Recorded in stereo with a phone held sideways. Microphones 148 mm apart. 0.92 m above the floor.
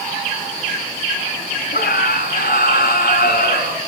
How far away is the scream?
About 7 m.